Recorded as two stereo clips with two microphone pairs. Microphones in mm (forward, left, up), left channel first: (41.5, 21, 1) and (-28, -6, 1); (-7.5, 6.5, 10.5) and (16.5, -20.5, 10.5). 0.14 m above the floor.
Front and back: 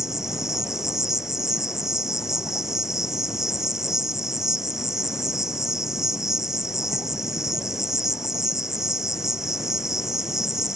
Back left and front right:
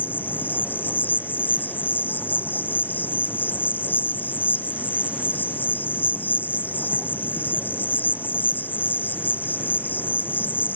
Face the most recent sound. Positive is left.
turn(degrees=120)